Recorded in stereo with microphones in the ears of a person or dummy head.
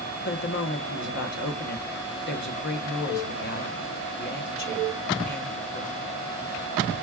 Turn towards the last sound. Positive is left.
turn(degrees=55)  # may be behind; listen again after turning